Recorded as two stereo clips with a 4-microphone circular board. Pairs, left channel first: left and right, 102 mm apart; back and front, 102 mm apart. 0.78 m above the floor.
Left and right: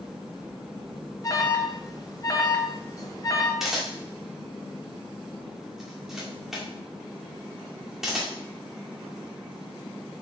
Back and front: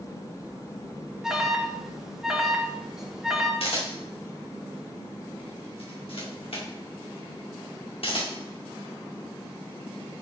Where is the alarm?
80° left, 0.9 m.